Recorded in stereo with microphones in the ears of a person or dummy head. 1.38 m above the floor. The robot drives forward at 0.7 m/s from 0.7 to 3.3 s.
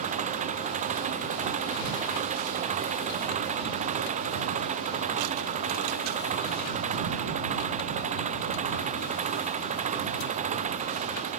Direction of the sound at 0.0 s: 40° right (ahead or behind).